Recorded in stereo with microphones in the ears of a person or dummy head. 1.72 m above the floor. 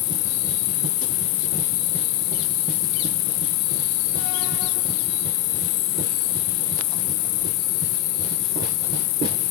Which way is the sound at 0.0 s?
55° left (ahead or behind).